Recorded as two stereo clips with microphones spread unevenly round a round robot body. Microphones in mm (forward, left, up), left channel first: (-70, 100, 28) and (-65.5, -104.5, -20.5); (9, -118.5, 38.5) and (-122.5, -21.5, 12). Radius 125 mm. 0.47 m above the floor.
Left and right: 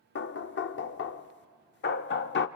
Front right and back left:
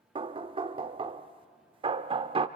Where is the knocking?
115° left, 0.8 m.